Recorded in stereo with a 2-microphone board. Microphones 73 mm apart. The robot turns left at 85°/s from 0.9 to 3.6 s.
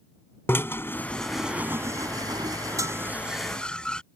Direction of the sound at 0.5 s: 35° left (ahead or behind).